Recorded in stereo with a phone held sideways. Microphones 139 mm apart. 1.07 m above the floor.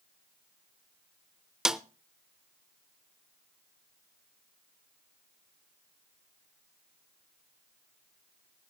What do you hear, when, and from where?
1.6 s a snare drum: 5° right (ahead or behind), 0.7 m